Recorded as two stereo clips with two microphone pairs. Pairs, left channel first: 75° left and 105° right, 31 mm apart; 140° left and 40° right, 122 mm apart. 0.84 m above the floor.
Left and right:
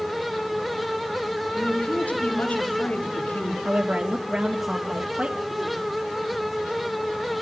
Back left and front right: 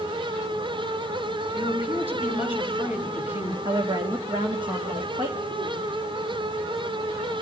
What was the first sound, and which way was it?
A woman speaking, 35° left.